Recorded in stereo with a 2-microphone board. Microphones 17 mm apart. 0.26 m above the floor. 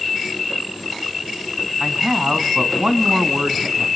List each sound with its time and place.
1.8 s a man speaking: 50° right (ahead or behind), 2 m